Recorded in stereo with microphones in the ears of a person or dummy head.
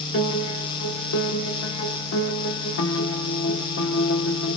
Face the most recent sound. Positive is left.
turn(degrees=75)  # may be behind; listen again after turning